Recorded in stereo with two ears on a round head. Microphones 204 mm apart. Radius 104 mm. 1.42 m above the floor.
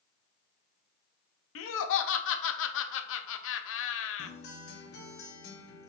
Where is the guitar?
50° left (ahead or behind), 0.9 m.